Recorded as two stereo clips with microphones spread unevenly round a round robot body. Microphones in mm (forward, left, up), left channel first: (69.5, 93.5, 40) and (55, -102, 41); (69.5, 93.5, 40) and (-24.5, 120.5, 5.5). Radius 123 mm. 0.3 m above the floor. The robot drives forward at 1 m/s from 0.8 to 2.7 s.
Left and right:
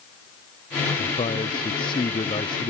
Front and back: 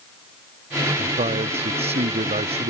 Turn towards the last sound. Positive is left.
turn(degrees=160)